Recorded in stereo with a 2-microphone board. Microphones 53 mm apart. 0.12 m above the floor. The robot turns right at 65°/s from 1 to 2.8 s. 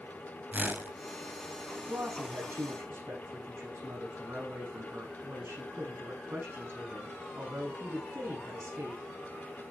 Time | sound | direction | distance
0.5 | a whoosh | 25° right (ahead or behind) | 1.5 m
1.9 | a woman speaking | 115° right | 7 m